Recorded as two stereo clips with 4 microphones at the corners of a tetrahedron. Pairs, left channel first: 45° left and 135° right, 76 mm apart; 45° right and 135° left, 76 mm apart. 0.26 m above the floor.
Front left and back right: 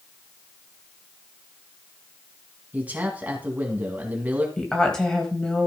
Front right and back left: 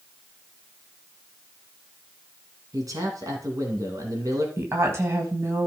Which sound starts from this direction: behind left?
A woman speaking, at 4.6 s.